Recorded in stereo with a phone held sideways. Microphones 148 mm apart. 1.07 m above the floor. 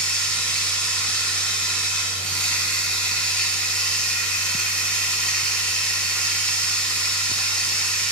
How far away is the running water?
About 1.6 m.